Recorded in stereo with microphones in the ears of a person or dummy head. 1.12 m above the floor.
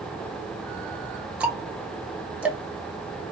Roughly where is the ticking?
Centre.